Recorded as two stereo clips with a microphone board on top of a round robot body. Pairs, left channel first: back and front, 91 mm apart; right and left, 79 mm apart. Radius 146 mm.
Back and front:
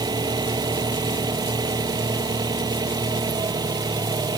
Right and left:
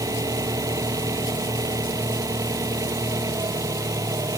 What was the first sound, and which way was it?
An engine running, 45° left.